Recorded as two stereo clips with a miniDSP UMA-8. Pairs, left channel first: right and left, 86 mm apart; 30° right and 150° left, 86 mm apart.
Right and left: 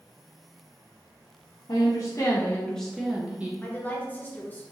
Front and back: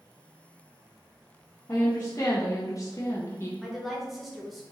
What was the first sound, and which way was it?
A woman speaking, 80° right.